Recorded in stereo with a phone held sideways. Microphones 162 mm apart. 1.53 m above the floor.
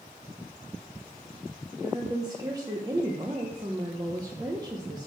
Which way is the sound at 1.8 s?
25° right (ahead or behind).